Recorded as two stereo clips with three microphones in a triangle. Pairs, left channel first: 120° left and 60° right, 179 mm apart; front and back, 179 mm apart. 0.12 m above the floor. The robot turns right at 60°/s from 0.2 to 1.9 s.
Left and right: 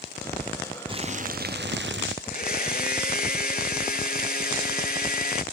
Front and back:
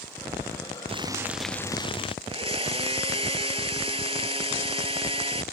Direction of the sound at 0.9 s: 120° right.